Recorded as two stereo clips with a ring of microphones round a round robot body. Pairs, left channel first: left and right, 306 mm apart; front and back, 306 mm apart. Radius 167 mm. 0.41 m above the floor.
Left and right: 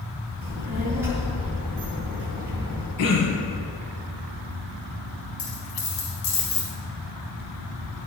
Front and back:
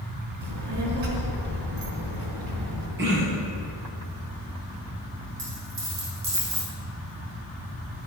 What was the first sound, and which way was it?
A child speaking, 175° right.